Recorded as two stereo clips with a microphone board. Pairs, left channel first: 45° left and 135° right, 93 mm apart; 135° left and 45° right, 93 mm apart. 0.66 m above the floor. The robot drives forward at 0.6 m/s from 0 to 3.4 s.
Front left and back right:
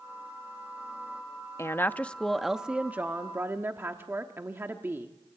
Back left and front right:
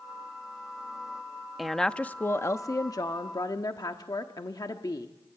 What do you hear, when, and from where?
1.6 s a woman speaking: 40° left, 0.7 m; by 5.1 s 165° left, 1.0 m